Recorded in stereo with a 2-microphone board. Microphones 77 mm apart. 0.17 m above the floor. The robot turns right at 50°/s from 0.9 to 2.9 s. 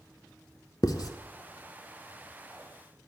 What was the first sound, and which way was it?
Writing, 55° left (ahead or behind).